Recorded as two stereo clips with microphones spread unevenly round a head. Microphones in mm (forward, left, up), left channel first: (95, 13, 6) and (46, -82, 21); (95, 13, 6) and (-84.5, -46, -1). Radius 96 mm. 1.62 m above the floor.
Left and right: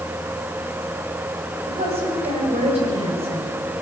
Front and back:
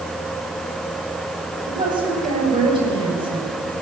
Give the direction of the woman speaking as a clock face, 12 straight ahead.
3 o'clock.